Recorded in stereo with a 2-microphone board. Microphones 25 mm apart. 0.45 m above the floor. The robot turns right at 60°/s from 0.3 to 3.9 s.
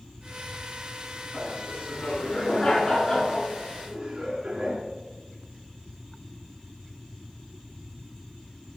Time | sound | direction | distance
1.3 | laughter | 65° left | 5.5 m